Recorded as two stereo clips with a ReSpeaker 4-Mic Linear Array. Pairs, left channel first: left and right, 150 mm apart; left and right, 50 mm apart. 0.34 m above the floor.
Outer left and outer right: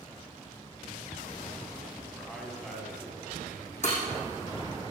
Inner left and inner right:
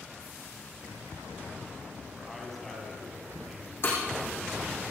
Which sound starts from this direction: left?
Breaking glass, at 3.8 s.